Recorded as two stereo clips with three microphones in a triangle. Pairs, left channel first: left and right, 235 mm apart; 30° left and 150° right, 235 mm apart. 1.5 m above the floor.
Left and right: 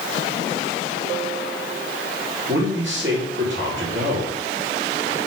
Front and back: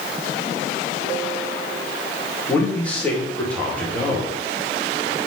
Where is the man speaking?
55° right, 2 m.